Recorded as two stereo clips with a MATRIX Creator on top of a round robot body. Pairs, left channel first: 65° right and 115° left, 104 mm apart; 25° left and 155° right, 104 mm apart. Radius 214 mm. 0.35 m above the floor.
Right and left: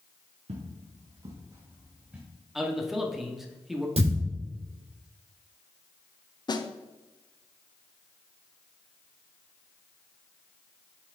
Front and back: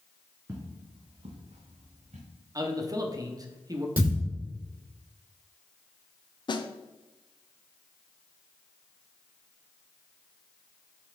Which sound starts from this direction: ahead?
A snare drum, at 6.5 s.